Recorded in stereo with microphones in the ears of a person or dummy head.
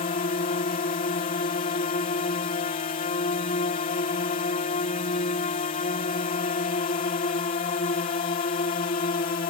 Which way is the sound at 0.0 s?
40° left (ahead or behind).